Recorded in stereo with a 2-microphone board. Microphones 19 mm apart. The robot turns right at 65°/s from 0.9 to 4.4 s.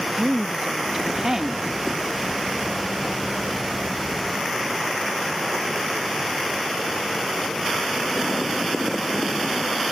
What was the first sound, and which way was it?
A woman speaking, 15° right (ahead or behind).